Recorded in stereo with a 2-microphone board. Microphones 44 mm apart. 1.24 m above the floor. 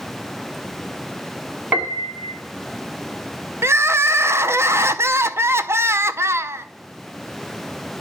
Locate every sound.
1.7 s a piano: 35° right (ahead or behind), 1.4 m
3.6 s crying: 70° right (ahead or behind), 0.5 m